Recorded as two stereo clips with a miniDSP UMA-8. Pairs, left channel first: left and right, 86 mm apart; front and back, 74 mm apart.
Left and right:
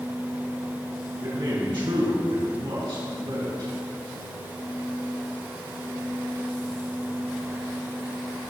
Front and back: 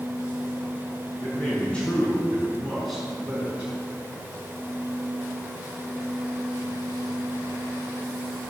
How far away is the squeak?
I don't hear a squeak.